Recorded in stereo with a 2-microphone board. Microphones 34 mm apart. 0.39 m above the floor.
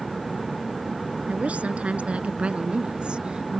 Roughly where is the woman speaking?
Right.